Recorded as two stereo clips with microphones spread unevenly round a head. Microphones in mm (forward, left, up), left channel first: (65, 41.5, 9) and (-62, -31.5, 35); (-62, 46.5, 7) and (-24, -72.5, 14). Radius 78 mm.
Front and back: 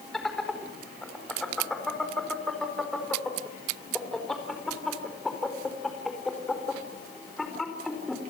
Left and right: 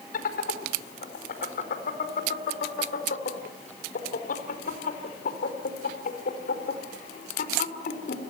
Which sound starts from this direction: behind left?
Laughter, at 0.1 s.